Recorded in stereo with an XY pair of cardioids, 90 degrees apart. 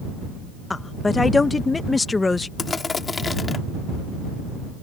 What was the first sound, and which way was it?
A woman speaking, 25° left.